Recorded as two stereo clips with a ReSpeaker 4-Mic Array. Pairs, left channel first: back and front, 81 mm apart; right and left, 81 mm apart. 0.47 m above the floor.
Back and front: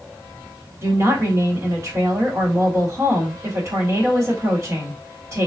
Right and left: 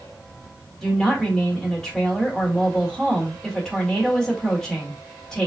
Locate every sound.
0.8 s a woman speaking: 10° right, 1.6 m